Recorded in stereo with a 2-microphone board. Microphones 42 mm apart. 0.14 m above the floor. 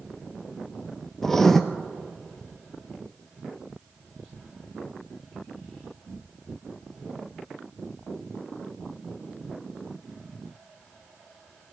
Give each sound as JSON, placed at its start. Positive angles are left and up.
{"t": 1.2, "sound": "writing", "side_deg": 5, "distance_m": 0.6}